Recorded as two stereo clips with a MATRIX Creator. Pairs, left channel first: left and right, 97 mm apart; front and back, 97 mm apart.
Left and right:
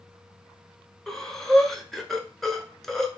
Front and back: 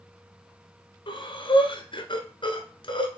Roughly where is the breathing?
Ahead.